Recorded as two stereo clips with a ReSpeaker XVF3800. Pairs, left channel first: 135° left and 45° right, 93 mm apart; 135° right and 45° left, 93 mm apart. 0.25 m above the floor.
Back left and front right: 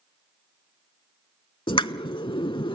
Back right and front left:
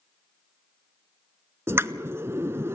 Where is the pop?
110° left, 0.5 m.